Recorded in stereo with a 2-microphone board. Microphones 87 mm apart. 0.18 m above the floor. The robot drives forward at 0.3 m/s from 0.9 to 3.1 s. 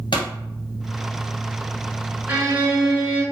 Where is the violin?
25° right (ahead or behind), 1.5 m; by 3.2 s 20° right (ahead or behind), 1.6 m.